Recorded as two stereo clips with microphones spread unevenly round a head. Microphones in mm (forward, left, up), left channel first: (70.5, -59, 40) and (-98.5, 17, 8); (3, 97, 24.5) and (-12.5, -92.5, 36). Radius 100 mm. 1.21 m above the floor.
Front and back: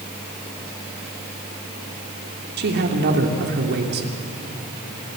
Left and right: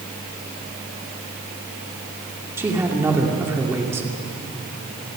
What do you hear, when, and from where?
2.6 s a man speaking: 170° right, 2.5 m